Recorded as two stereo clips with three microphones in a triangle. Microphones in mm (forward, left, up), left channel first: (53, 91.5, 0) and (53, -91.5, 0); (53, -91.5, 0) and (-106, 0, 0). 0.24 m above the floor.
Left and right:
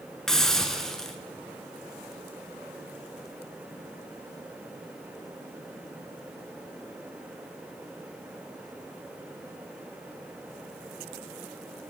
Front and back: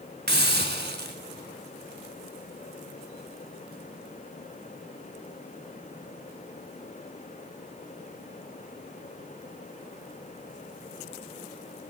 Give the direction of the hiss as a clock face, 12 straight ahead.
6 o'clock.